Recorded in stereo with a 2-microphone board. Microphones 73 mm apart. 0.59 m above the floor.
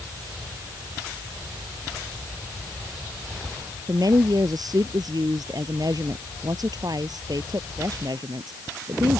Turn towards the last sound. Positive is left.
turn(degrees=-60)  # may be behind; listen again after turning